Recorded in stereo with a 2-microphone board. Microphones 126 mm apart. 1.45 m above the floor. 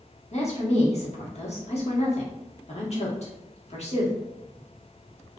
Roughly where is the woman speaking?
Left.